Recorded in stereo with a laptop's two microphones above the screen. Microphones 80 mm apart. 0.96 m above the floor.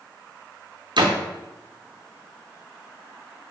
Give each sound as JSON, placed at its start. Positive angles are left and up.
{"t": 1.0, "sound": "a door slam", "side_deg": -70, "distance_m": 0.5}